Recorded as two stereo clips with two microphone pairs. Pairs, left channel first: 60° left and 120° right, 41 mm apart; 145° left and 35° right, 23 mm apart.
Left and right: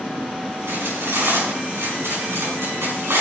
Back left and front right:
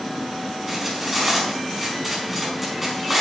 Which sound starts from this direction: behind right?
Cutlery clinking, at 0.7 s.